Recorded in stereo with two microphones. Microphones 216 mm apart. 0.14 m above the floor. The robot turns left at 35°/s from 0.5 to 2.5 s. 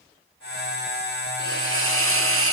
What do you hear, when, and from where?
1.4 s a hiss: 50° right, 2.5 m; by 2.5 s 90° right, 2.5 m